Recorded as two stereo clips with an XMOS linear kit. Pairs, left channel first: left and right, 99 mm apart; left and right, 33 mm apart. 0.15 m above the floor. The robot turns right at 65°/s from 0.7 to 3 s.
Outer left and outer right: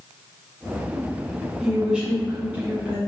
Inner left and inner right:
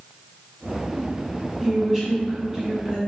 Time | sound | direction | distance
1.6 | a woman speaking | 5° right (ahead or behind) | 1.4 m